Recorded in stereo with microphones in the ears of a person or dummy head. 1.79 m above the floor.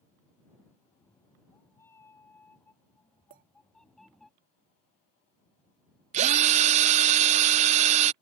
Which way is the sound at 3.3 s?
30° right (ahead or behind).